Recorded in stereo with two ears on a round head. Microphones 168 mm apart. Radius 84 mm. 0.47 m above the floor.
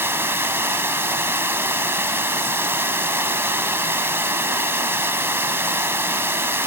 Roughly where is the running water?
Centre.